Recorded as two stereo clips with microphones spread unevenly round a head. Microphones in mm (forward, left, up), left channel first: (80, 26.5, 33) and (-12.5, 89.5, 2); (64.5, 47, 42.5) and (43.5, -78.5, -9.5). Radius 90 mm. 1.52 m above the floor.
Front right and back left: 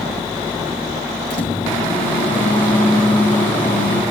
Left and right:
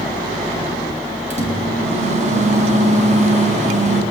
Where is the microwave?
65° right, 7.5 m.